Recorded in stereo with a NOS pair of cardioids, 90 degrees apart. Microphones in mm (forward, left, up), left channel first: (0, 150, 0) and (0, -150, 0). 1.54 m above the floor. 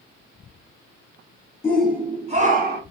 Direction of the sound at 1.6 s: 10° left.